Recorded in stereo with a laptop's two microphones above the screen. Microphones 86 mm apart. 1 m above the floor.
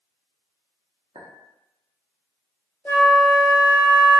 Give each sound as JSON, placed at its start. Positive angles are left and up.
{"t": 1.1, "sound": "a clink", "side_deg": -65, "distance_m": 0.8}
{"t": 2.9, "sound": "a flute", "side_deg": 15, "distance_m": 0.7}